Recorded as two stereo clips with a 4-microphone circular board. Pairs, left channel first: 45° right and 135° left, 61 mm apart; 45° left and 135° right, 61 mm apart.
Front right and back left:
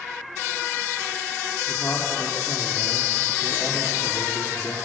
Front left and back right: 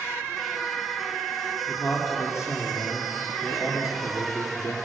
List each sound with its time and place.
1.7 s a man speaking: 5° left, 5.5 m